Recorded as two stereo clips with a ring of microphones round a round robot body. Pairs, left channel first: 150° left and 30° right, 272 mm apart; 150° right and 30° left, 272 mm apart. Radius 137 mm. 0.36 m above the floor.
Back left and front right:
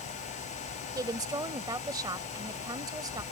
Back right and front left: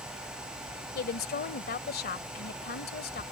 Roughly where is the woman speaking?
Right.